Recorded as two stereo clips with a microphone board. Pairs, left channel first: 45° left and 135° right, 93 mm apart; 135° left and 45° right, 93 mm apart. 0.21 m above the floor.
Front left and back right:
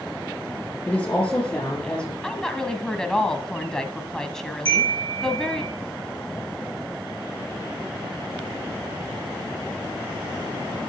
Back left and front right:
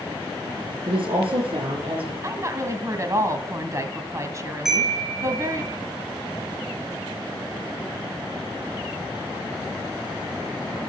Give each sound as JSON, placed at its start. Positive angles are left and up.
{"t": 0.9, "sound": "a woman speaking", "azimuth_deg": -30, "distance_m": 4.0}
{"t": 2.2, "sound": "a woman speaking", "azimuth_deg": -35, "distance_m": 1.4}
{"t": 4.7, "sound": "a chime", "azimuth_deg": -130, "distance_m": 4.0}